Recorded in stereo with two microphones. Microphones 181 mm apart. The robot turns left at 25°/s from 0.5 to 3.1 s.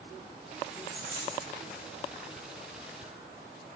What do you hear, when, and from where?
0.7 s a dropped coin: 45° left (ahead or behind), 3.5 m; by 1.5 s 30° left (ahead or behind), 3.5 m